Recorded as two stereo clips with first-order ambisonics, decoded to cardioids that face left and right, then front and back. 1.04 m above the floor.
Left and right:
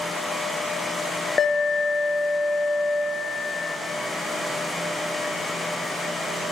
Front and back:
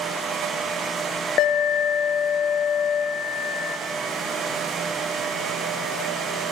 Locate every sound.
1.4 s an alarm: 25° left, 1.0 m